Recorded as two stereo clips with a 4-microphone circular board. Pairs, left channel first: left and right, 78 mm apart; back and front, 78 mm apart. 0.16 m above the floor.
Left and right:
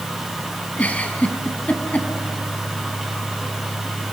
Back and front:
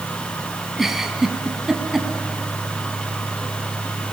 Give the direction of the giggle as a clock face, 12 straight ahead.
9 o'clock.